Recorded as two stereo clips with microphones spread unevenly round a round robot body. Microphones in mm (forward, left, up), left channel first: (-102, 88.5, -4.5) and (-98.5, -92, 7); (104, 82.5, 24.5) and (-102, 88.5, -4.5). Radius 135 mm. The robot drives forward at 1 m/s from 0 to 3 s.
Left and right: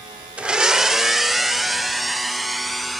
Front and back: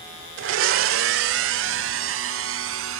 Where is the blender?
175° right; by 3.0 s straight behind.